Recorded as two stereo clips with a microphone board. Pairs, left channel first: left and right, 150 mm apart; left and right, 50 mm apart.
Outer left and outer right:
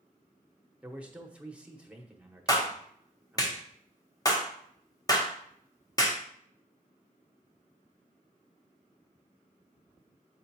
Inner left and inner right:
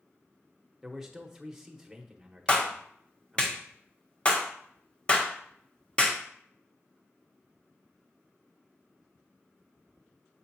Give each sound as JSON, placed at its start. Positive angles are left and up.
{"t": 0.8, "sound": "a man speaking", "side_deg": -10, "distance_m": 1.0}
{"t": 2.5, "sound": "a clap", "side_deg": 25, "distance_m": 1.0}